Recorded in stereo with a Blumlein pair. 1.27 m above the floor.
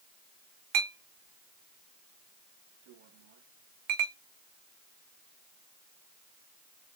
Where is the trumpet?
I don't hear a trumpet.